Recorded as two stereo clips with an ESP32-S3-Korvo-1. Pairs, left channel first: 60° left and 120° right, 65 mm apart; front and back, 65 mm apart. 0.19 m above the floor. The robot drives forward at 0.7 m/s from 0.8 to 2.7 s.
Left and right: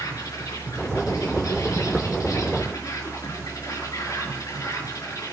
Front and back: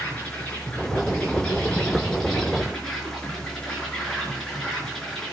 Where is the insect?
65° left, 4.5 m; by 5.3 s 80° left, 4.5 m.